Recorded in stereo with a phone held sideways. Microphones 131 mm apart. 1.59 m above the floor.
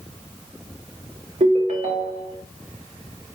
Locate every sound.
1.4 s a ringtone: 65° right (ahead or behind), 1.9 m